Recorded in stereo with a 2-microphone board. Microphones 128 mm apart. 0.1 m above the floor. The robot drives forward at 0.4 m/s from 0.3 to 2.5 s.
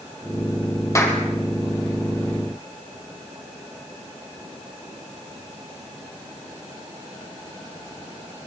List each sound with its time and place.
0.9 s a clap: 25° left (ahead or behind), 3.5 m